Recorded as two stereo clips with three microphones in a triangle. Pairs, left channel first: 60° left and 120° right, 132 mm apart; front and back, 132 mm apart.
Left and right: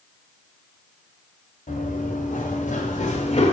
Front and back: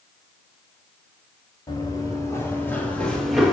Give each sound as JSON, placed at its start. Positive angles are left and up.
{"t": 1.7, "sound": "running footsteps", "azimuth_deg": 60, "distance_m": 1.9}